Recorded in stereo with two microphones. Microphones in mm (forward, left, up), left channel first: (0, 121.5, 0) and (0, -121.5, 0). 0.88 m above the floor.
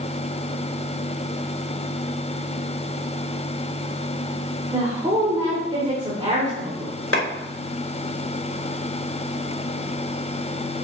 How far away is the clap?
About 4 m.